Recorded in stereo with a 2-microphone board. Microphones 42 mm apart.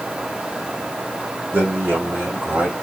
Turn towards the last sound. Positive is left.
turn(degrees=-50)  # may be behind; listen again after turning